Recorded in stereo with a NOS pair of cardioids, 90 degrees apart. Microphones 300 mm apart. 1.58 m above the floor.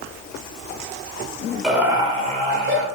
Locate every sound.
1.6 s laughter: straight ahead, 1.8 m; by 2.9 s 45° right, 2 m